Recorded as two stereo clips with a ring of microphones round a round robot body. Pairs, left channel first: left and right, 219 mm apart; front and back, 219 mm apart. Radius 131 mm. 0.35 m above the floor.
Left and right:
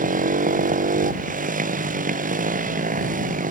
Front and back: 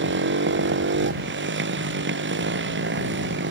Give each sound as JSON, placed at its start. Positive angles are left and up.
{"t": 0.0, "sound": "a motorcycle", "azimuth_deg": -145}